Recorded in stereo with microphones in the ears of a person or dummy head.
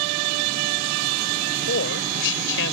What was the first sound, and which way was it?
A woman speaking, 65° left (ahead or behind).